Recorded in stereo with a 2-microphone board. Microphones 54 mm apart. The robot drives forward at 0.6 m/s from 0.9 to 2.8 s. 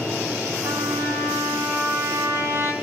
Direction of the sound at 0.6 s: 65° right (ahead or behind).